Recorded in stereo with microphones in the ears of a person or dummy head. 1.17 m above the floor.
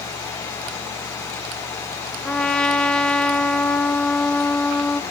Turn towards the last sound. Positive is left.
turn(degrees=5)  # may be behind; listen again after turning